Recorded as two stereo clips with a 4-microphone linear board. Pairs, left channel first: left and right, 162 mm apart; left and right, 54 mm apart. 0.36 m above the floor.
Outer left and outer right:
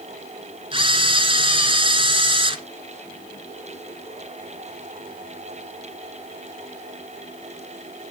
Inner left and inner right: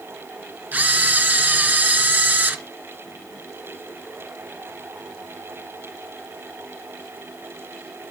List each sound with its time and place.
0.7 s a camera shutter: 35° right (ahead or behind), 1.7 m